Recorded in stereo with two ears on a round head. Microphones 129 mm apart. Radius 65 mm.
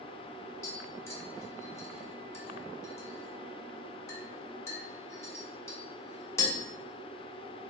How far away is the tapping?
About 1.0 m.